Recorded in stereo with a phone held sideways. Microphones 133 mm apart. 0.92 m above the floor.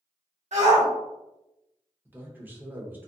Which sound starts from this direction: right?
A shout, at 0.5 s.